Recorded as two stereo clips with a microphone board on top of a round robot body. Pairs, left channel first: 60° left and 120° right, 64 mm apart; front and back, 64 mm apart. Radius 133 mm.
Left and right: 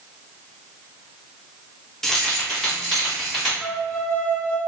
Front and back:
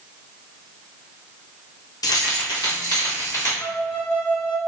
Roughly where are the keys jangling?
Ahead right.